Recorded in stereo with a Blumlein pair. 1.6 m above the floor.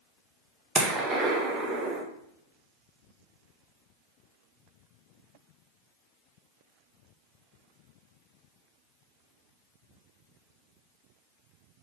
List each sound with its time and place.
0.8 s a gunshot: 20° right, 0.9 m